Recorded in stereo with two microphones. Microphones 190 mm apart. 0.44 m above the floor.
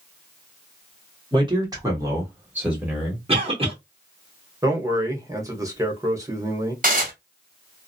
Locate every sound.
1.3 s a man speaking: 25° right (ahead or behind), 1.3 m; by 3.2 s centre (ahead or behind), 1.4 m
3.3 s a cough: 30° right (ahead or behind), 0.9 m
4.6 s a man speaking: 15° right (ahead or behind), 1.0 m
6.8 s dishes clattering: 50° right (ahead or behind), 1.3 m